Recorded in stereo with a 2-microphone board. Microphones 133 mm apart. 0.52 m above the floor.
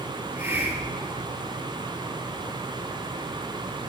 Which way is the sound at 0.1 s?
20° right (ahead or behind).